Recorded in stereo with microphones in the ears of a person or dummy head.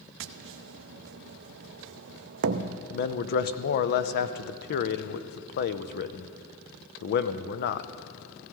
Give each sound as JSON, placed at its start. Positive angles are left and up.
{"t": 0.2, "sound": "tapping", "side_deg": -65, "distance_m": 0.5}
{"t": 2.9, "sound": "a man speaking", "side_deg": 50, "distance_m": 0.6}